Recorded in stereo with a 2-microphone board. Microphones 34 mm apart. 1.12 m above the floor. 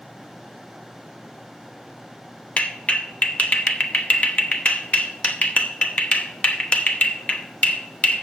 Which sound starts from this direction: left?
A clap, at 2.6 s.